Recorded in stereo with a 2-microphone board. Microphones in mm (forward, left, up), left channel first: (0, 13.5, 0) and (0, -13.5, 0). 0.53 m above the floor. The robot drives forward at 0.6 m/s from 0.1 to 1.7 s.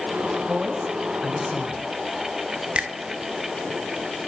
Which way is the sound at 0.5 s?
10° right (ahead or behind).